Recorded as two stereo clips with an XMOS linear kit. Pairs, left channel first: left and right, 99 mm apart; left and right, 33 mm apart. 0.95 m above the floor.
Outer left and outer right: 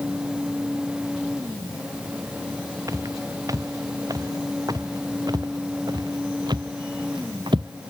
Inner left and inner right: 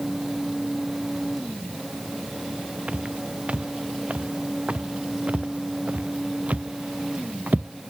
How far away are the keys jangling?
I don't hear keys jangling.